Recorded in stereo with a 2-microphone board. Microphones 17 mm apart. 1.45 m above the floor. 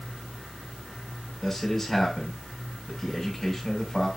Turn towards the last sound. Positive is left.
turn(degrees=10)  # may be behind; listen again after turning